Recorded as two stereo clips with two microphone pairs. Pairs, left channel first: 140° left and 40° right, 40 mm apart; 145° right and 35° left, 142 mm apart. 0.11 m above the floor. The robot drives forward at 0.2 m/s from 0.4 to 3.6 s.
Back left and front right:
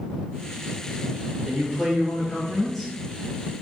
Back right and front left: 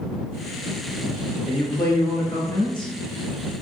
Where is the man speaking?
115° right, 1.5 m; by 2.9 s 130° right, 1.5 m.